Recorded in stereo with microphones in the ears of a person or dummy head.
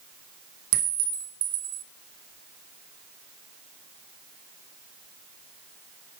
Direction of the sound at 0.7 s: 45° right (ahead or behind).